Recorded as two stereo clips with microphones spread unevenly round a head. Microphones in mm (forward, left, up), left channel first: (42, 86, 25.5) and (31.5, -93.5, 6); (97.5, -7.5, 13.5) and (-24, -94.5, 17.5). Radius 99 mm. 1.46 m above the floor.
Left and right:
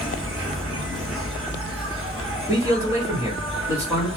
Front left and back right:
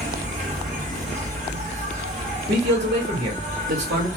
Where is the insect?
175° right, 1.5 m.